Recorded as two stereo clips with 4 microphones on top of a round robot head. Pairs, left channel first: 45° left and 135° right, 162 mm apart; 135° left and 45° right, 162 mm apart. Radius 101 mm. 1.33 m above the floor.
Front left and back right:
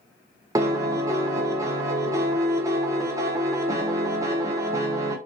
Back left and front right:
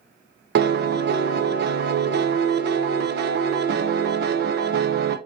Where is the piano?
65° right, 0.6 m.